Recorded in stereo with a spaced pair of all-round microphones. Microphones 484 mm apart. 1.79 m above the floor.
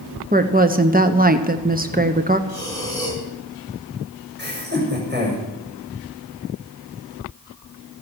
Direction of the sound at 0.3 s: 20° right (ahead or behind).